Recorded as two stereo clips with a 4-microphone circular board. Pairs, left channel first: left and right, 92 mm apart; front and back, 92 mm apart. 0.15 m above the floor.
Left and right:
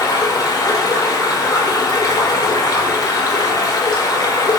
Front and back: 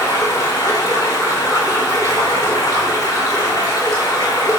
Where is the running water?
45° left, 4 m.